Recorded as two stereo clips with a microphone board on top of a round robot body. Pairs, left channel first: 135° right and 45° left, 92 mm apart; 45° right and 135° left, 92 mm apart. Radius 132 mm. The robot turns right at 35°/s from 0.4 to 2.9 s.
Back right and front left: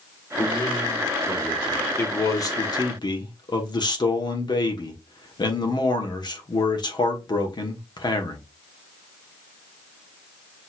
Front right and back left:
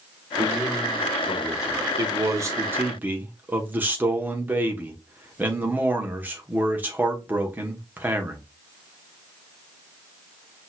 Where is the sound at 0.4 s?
170° left, 2.5 m; by 1.9 s 140° right, 2.5 m.